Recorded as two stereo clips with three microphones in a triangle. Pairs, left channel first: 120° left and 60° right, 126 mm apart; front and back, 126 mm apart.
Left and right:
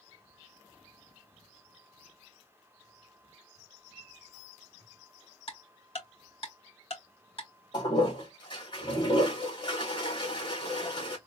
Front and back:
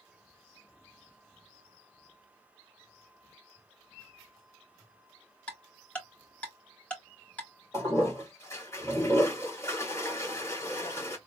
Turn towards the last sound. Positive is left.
turn(degrees=65)